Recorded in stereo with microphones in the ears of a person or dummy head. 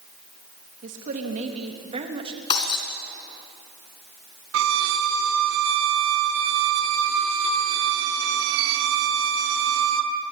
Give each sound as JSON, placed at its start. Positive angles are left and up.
{"t": 0.8, "sound": "a woman speaking", "side_deg": -45, "distance_m": 3.0}
{"t": 2.5, "sound": "breaking glass", "side_deg": 30, "distance_m": 3.5}
{"t": 4.5, "sound": "a violin", "side_deg": -65, "distance_m": 2.0}